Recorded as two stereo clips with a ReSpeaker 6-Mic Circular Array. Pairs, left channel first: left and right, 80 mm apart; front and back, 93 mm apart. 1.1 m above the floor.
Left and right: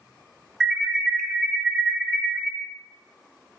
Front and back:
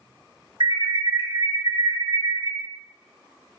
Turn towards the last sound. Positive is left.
turn(degrees=-175)